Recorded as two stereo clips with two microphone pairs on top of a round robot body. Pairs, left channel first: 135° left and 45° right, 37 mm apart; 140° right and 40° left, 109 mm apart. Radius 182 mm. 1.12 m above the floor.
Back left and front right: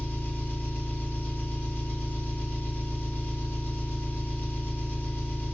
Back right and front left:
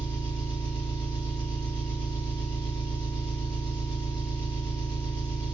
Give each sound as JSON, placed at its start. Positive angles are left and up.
{"t": 0.0, "sound": "an engine running", "azimuth_deg": 165, "distance_m": 1.6}